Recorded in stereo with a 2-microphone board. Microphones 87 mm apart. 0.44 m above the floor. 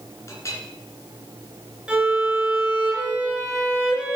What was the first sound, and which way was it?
A clink, 35° left (ahead or behind).